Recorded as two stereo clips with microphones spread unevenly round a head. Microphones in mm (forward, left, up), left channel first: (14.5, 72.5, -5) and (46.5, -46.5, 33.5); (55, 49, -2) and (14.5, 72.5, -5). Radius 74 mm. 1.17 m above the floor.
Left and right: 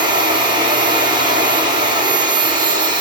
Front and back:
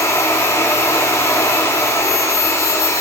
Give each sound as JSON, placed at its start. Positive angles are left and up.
{"t": 0.0, "sound": "a machine running", "azimuth_deg": -25, "distance_m": 1.8}